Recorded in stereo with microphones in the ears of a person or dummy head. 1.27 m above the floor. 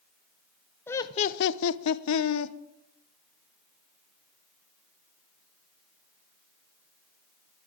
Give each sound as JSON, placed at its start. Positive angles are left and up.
{"t": 0.9, "sound": "laughter", "side_deg": 5, "distance_m": 0.5}